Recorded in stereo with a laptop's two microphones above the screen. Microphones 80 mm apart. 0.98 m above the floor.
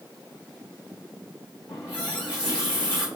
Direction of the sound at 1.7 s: 65° left (ahead or behind).